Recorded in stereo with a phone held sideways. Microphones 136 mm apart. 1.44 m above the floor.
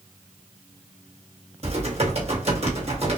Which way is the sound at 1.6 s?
50° right (ahead or behind).